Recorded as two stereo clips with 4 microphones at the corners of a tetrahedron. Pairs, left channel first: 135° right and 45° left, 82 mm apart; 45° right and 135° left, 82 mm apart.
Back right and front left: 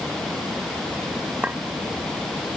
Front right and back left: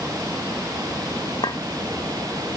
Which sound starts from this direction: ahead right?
A clink, at 1.4 s.